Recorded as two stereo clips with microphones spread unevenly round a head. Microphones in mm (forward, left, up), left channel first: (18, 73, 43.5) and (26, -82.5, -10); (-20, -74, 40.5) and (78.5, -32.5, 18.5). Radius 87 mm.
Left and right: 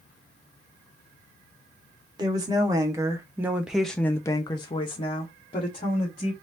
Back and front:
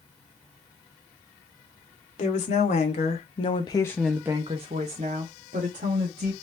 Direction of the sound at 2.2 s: 160° right.